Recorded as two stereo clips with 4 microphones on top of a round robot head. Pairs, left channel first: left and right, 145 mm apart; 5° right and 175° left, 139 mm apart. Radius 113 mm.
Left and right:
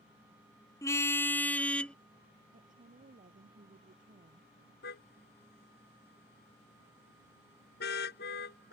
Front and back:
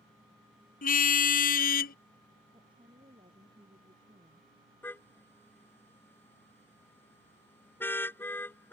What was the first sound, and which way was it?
A car horn, 15° left.